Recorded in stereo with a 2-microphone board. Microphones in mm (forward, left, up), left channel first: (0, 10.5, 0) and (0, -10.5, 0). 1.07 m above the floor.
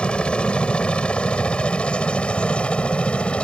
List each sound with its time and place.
0.0 s a helicopter: 55° left (ahead or behind); by 3.4 s 60° left (ahead or behind)